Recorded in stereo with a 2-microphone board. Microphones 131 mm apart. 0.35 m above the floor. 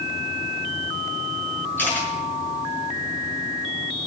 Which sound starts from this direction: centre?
A camera shutter, at 1.8 s.